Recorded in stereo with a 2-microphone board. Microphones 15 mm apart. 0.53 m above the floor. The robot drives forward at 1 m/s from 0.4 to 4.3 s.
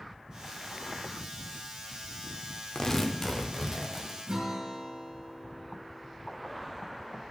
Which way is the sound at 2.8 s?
45° left (ahead or behind).